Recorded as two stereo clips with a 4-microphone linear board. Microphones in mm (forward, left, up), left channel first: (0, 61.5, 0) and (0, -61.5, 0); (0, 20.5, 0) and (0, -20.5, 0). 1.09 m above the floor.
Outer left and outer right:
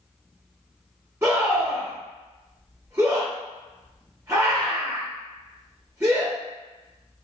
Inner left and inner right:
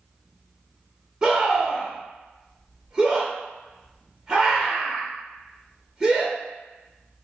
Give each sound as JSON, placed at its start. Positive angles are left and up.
{"t": 1.2, "sound": "a scream", "side_deg": -20, "distance_m": 0.9}